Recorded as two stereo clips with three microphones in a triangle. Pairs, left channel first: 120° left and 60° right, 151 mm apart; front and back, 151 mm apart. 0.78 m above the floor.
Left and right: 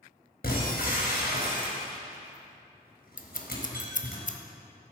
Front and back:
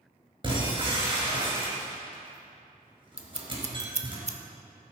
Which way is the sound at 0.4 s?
120° left.